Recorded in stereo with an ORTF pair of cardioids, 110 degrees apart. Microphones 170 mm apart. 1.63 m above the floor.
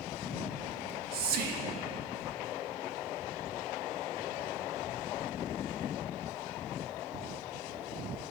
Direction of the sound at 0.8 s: 65° right.